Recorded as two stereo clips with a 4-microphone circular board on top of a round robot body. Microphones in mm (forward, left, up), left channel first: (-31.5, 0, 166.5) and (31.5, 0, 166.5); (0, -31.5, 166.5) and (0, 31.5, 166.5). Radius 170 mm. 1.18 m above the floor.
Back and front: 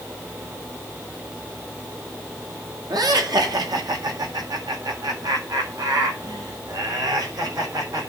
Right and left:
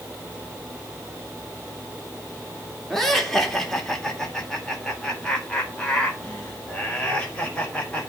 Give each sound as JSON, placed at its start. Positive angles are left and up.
{"t": 2.9, "sound": "laughter", "azimuth_deg": -5, "distance_m": 3.0}